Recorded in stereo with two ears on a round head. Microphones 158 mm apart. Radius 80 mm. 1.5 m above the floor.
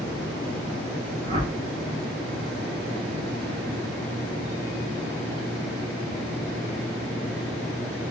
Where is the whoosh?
30° right (ahead or behind), 1.0 m.